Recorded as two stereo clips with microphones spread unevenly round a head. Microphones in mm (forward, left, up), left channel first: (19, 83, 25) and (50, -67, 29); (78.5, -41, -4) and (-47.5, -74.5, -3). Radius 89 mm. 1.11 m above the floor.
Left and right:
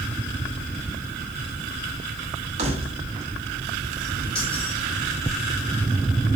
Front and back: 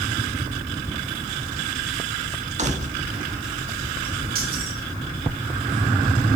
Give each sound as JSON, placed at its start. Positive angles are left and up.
{"t": 2.6, "sound": "keys jangling", "azimuth_deg": -135, "distance_m": 1.7}